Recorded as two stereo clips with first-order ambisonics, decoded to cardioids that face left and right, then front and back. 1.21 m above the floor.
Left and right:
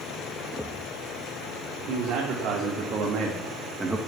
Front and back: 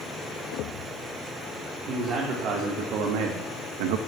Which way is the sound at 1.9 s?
135° right.